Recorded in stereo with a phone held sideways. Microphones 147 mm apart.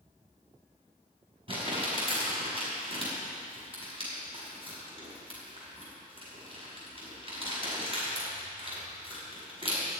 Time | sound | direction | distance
1.5 | crumpling | 40° right (ahead or behind) | 5.5 m